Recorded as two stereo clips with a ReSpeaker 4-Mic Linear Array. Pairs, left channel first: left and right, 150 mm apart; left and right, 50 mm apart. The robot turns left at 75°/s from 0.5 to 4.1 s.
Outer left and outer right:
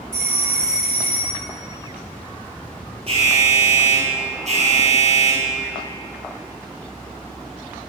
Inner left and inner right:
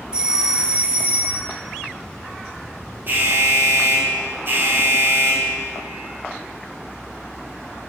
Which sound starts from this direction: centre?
A doorbell, at 0.1 s.